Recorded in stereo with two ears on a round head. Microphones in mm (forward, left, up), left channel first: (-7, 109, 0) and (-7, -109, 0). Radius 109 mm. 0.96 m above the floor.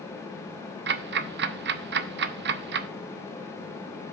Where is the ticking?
45° right (ahead or behind), 0.6 m.